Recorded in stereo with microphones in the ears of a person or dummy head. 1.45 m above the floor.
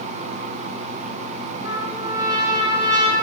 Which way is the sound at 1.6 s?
20° right (ahead or behind).